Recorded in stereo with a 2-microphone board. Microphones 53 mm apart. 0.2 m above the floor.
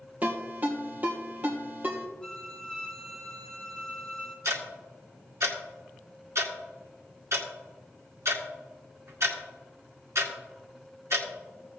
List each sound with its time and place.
0.2 s a ringtone: 30° right (ahead or behind), 2.5 m
2.2 s a violin: 15° left (ahead or behind), 2 m
4.5 s ticking: 60° right (ahead or behind), 1.9 m